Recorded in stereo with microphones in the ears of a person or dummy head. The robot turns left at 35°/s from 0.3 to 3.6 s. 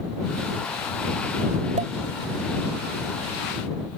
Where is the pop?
35° right (ahead or behind); by 1.9 s 30° right (ahead or behind).